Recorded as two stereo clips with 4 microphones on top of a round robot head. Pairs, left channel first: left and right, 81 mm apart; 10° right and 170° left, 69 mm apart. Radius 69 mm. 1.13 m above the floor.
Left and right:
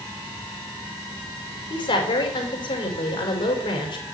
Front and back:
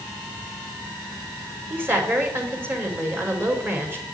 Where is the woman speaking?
115° left, 4.5 m.